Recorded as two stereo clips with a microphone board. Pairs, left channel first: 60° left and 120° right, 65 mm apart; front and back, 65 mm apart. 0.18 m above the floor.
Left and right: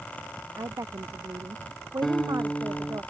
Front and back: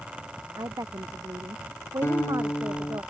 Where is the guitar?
20° right.